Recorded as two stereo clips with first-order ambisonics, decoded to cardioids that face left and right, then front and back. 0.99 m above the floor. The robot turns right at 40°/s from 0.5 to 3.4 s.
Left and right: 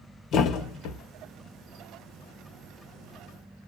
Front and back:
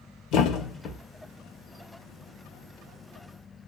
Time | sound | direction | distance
0.3 | a thud | 40° left | 0.9 m